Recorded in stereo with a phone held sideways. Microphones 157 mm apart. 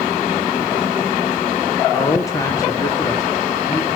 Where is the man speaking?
20° left (ahead or behind), 0.9 m.